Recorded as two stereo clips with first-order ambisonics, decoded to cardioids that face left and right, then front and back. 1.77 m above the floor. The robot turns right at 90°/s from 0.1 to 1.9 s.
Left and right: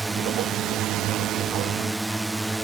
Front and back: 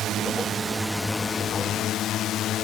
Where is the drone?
170° right; by 2.6 s 5° right.